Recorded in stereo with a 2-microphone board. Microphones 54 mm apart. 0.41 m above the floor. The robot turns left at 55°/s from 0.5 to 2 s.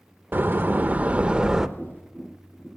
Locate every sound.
0.3 s a door slam: 100° right, 0.5 m; by 1.7 s 165° right, 0.5 m
1.8 s tapping: 40° left (ahead or behind), 7 m; by 2.7 s 50° left (ahead or behind), 7 m